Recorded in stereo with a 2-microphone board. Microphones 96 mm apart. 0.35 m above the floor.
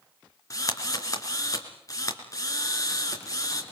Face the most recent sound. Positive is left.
turn(degrees=35)  # may be behind; listen again after turning